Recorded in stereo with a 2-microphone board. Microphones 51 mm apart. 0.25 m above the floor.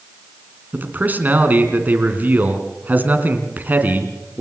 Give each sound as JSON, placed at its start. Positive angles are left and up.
{"t": 0.7, "sound": "a man speaking", "side_deg": -35, "distance_m": 3.0}